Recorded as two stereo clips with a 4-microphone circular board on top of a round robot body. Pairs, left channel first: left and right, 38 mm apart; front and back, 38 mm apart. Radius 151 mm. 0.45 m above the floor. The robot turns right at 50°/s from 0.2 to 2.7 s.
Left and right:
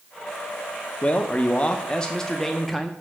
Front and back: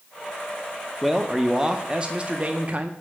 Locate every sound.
1.0 s a man speaking: 90° left, 0.8 m; by 2.9 s 175° left, 0.8 m